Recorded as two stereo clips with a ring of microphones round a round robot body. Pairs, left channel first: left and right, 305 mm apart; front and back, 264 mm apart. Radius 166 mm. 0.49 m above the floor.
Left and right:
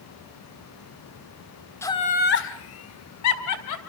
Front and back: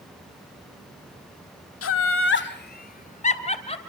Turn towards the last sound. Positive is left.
turn(degrees=70)